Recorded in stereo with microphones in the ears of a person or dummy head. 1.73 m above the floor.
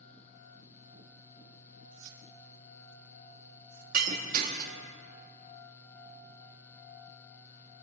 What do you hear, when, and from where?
1.9 s keys jangling: 60° right (ahead or behind), 4 m; by 3.8 s 70° right (ahead or behind), 3 m
3.9 s breaking glass: 45° right (ahead or behind), 1.8 m